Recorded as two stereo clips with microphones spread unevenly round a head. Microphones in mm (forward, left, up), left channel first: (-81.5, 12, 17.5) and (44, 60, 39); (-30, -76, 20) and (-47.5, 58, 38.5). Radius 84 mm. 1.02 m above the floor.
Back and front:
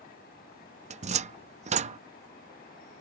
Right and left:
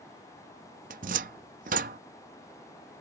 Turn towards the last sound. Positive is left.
turn(degrees=55)